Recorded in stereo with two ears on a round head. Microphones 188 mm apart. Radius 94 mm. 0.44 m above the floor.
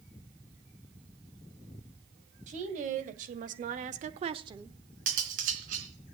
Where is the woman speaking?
35° right (ahead or behind), 2.5 m; by 4.8 s 10° right (ahead or behind), 1.2 m.